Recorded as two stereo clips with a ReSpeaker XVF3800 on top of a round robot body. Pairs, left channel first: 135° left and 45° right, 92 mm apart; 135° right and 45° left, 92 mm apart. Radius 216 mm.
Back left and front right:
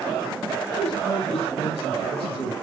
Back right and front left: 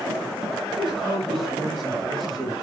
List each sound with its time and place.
0.7 s a man speaking: 140° left, 8.5 m; by 2.5 s 135° left, 9.5 m